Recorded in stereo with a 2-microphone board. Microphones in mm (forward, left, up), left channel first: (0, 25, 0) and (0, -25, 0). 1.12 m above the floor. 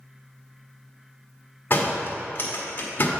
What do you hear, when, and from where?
1.7 s a door slam: 40° left (ahead or behind), 1.5 m